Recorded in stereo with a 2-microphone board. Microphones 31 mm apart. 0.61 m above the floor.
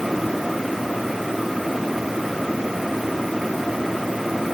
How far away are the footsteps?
I don't hear footsteps.